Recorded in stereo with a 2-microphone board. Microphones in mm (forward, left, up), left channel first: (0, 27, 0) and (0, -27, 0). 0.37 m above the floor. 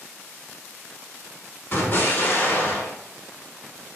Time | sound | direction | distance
1.7 | an explosion | 50° left (ahead or behind) | 1.3 m